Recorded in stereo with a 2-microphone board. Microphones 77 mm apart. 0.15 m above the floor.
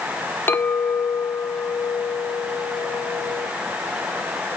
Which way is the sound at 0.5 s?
25° left (ahead or behind).